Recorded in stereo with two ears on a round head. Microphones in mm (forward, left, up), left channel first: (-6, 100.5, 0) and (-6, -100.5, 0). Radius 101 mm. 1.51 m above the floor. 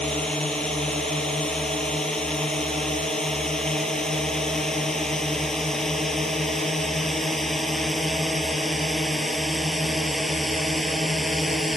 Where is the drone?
5° left (ahead or behind); by 11.8 s centre (ahead or behind).